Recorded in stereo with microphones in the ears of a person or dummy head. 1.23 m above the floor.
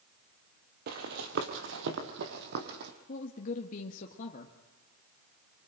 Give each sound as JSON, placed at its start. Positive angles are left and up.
{"t": 0.9, "sound": "running footsteps", "side_deg": -50, "distance_m": 1.8}
{"t": 3.1, "sound": "a woman speaking", "side_deg": 45, "distance_m": 1.5}